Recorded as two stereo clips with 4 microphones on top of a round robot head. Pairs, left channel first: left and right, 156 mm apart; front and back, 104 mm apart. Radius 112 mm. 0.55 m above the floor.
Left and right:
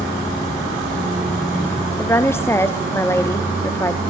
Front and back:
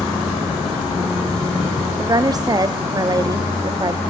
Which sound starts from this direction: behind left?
A woman speaking, at 2.0 s.